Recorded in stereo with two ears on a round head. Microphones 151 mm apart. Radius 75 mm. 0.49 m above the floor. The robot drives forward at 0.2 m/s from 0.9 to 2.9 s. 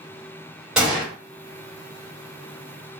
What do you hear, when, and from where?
0.8 s a gunshot: 5° right (ahead or behind), 1.5 m